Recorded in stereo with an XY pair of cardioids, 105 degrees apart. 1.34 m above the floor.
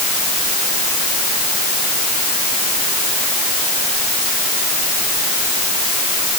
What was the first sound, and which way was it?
Only background noise.